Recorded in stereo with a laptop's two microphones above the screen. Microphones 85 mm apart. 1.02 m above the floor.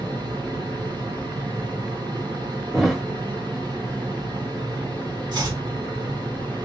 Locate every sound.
0.0 s a fan: 55° right (ahead or behind), 1.5 m
2.7 s a thud: centre (ahead or behind), 0.9 m
5.3 s chopping: 50° right (ahead or behind), 1.6 m